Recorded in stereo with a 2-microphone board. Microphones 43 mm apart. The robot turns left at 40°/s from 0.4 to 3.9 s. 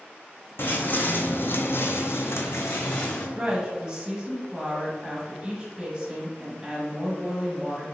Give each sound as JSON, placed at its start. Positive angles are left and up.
{"t": 0.6, "sound": "footsteps", "side_deg": 55, "distance_m": 0.8}
{"t": 3.4, "sound": "a woman speaking", "side_deg": -30, "distance_m": 1.3}